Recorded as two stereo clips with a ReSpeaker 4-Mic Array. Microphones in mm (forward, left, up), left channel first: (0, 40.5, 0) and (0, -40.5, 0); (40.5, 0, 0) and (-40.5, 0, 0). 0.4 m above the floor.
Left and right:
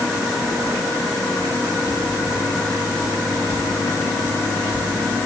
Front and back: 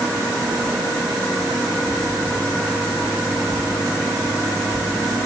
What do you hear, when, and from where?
Only background noise.